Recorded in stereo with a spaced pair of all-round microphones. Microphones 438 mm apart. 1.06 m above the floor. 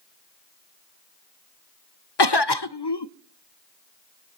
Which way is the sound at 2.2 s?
65° left (ahead or behind).